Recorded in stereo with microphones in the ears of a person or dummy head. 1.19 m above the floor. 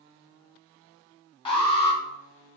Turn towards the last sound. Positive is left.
turn(degrees=25)  # may be behind; listen again after turning